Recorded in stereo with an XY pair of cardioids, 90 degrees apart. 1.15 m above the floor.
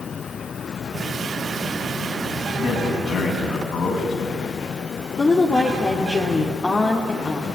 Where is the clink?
I don't hear a clink.